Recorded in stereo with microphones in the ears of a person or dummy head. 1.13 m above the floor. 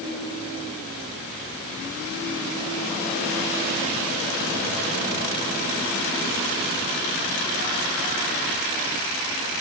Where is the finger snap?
No finger snap in this recording.